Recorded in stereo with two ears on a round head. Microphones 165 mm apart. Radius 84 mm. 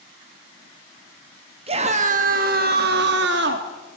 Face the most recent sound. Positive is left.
turn(degrees=-65)  # may be behind; listen again after turning